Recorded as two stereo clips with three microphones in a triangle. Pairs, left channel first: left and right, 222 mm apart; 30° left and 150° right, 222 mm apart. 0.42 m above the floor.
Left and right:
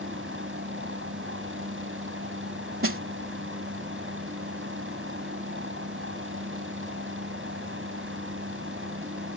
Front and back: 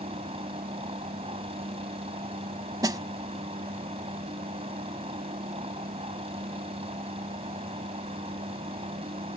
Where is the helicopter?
90° right.